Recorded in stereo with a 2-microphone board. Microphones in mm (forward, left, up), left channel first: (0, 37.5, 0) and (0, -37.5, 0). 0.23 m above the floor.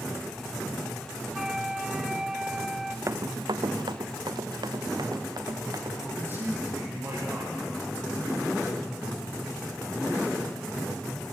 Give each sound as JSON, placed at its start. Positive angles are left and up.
{"t": 1.3, "sound": "a flute", "side_deg": -10, "distance_m": 0.6}
{"t": 3.1, "sound": "running footsteps", "side_deg": -45, "distance_m": 0.6}
{"t": 6.0, "sound": "a man speaking", "side_deg": -25, "distance_m": 7.0}